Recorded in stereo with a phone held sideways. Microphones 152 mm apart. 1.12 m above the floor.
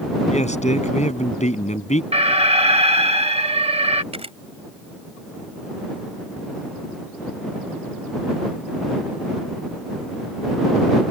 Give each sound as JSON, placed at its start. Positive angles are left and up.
{"t": 0.3, "sound": "a man speaking", "side_deg": 50}
{"t": 2.1, "sound": "an alarm", "side_deg": -40}
{"t": 4.1, "sound": "a camera shutter", "side_deg": -40}